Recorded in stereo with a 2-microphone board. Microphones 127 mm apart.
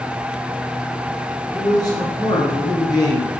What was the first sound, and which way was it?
A man speaking, 30° left (ahead or behind).